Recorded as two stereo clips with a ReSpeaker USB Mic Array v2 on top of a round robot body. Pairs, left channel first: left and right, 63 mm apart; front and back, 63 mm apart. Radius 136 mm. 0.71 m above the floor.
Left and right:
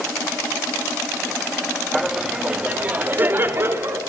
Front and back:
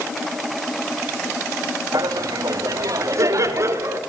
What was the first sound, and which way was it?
Laughter, straight behind.